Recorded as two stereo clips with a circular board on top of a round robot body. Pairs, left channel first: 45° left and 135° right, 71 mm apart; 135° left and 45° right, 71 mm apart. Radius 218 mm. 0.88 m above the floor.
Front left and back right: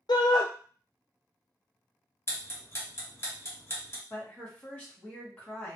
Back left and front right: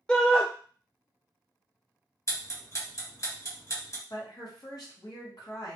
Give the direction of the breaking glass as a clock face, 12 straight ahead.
I don't hear breaking glass.